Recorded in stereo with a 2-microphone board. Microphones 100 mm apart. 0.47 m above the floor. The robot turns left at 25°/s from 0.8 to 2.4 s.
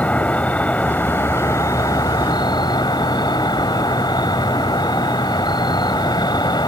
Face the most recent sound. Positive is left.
turn(degrees=125)